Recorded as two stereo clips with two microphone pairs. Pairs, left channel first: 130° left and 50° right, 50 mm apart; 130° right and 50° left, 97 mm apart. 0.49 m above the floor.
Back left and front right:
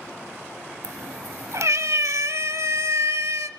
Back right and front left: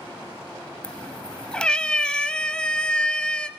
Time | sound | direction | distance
0.8 | a cat meowing | 45° right | 1.1 m